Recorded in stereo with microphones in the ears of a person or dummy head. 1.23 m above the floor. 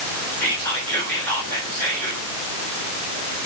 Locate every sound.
0.4 s whispering: 10° left (ahead or behind), 4 m